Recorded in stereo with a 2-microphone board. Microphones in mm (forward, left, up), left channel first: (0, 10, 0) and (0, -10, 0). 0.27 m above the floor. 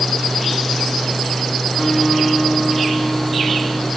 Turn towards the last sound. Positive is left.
turn(degrees=30)  # may be behind; listen again after turning